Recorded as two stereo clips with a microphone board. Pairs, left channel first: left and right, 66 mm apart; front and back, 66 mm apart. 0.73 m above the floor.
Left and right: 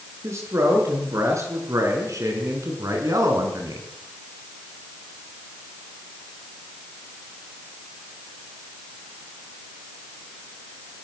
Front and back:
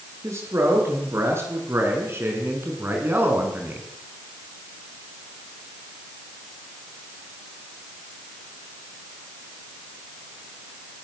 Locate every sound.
0.2 s a man speaking: 135° right, 8.5 m; by 3.9 s 115° right, 6 m